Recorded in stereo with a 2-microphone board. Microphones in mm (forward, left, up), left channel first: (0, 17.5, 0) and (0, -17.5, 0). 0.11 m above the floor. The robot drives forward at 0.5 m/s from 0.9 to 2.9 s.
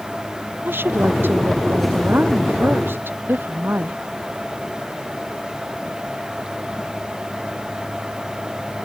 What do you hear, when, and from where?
0.7 s a woman speaking: 80° right